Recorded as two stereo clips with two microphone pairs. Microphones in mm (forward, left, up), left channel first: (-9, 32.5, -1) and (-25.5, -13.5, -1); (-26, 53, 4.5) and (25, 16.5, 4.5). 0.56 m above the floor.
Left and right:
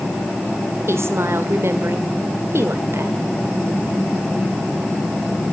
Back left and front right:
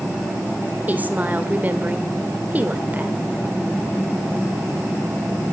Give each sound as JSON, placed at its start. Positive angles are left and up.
{"t": 0.9, "sound": "a woman speaking", "azimuth_deg": -95, "distance_m": 1.7}